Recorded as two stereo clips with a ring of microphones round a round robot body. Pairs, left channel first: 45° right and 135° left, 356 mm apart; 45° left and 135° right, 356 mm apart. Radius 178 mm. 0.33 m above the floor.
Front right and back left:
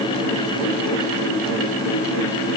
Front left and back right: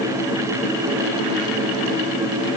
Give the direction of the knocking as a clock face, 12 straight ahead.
I don't hear knocking.